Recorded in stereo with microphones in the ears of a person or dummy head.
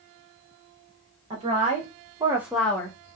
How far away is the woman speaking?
About 1.0 m.